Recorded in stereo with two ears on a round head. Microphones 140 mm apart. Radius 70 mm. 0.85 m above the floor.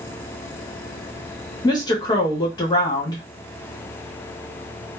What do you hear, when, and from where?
1.6 s a woman speaking: 25° left (ahead or behind), 0.9 m